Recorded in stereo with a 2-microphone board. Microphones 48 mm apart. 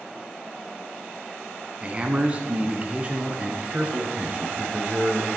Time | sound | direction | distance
1.8 | a man speaking | 25° right (ahead or behind) | 1.3 m